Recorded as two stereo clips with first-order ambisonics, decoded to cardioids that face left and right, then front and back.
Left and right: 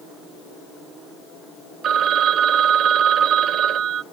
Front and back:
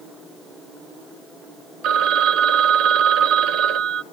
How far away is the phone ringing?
About 0.6 m.